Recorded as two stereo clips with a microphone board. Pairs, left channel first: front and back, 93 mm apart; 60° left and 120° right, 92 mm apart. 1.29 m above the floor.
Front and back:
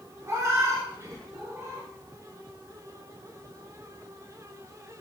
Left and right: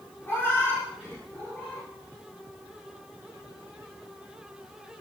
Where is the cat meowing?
120° left, 1.2 m; by 1.9 s 130° left, 2 m.